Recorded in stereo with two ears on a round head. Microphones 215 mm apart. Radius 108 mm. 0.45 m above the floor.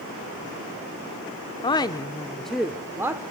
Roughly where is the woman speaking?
Centre.